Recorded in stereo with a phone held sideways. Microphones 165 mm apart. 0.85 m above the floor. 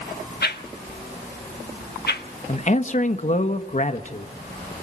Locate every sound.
0.4 s a whoosh: 70° left (ahead or behind), 1.5 m
2.5 s a man speaking: 45° left (ahead or behind), 1.3 m